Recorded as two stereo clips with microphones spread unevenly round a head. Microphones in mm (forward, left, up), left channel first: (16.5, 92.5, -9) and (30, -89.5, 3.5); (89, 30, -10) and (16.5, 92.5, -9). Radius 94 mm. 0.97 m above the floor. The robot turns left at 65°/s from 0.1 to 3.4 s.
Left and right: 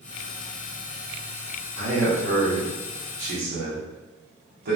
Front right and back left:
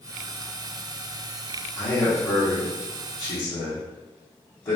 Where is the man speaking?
30° left, 0.8 m; by 4.8 s 75° right, 0.8 m.